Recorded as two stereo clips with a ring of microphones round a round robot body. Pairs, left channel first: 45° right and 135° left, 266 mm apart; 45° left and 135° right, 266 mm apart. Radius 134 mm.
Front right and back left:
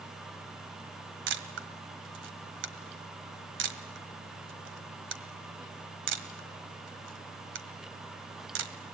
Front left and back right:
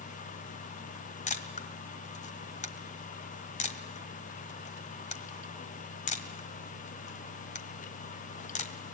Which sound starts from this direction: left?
A camera shutter, at 1.3 s.